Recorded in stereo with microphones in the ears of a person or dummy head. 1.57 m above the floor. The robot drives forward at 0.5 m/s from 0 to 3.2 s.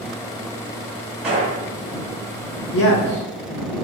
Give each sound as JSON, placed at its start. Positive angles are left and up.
{"t": 1.2, "sound": "a gunshot", "side_deg": -5, "distance_m": 1.3}
{"t": 2.7, "sound": "a man speaking", "side_deg": 65, "distance_m": 1.0}